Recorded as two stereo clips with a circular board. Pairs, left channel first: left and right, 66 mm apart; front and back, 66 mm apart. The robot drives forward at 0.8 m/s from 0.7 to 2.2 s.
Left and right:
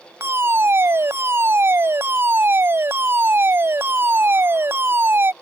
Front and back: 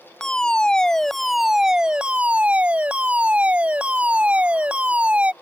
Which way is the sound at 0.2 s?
75° right.